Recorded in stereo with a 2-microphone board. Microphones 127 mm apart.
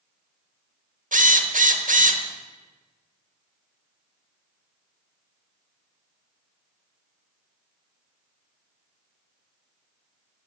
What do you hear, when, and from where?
1.1 s a drill: 75° right (ahead or behind), 1.2 m